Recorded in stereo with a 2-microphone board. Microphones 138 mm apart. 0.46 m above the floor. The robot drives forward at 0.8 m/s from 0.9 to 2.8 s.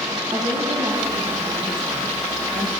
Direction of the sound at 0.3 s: 35° right (ahead or behind).